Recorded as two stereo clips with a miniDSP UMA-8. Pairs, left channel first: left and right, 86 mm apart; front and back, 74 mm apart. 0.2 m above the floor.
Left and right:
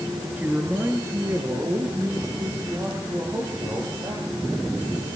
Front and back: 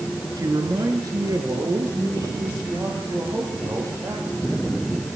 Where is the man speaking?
160° right, 3 m; by 4.7 s 130° right, 8.5 m.